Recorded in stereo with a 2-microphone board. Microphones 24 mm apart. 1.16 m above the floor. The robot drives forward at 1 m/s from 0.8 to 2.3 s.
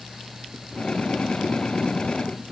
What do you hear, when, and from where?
Only background noise.